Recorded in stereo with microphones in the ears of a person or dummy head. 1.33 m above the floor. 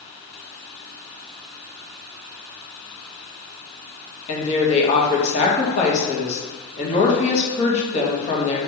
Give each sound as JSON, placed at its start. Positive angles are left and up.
{"t": 4.3, "sound": "a woman speaking", "side_deg": 35, "distance_m": 1.4}